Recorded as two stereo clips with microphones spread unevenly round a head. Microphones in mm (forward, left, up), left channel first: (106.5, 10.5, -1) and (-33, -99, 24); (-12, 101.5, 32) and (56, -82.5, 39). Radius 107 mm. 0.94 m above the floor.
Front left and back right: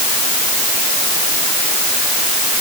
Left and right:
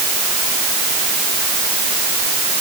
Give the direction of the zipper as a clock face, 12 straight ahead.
No zipper in this recording.